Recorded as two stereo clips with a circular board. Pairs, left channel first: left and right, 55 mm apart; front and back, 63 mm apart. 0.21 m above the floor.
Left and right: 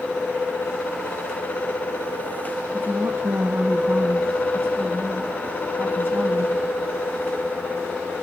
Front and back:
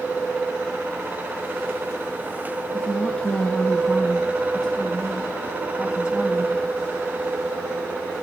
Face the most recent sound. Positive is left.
turn(degrees=-125)